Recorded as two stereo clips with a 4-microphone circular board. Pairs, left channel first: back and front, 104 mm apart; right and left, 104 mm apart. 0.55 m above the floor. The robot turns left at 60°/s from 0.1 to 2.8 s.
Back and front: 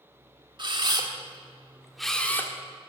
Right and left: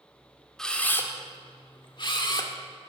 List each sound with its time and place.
0.6 s a camera shutter: 5° right, 1.5 m; by 2.5 s 120° right, 1.5 m